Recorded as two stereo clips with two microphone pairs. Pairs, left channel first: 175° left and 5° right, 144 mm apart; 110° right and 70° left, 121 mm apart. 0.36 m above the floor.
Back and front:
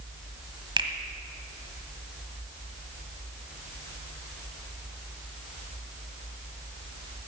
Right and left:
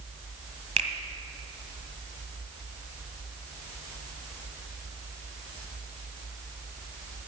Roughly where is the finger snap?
Ahead left.